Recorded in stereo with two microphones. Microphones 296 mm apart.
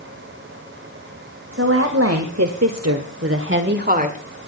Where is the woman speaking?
50° right (ahead or behind), 2 m; by 4.2 s 25° right (ahead or behind), 1.9 m.